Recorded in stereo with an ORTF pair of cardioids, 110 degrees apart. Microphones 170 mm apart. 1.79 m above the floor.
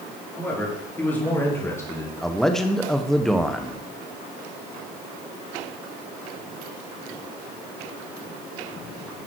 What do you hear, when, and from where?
0.4 s a man speaking: 10° left, 4.5 m; by 2.1 s 20° left, 1.8 m
2.2 s a man speaking: straight ahead, 1.1 m